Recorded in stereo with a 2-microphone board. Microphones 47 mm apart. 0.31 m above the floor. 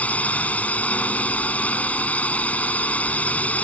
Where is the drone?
30° left (ahead or behind).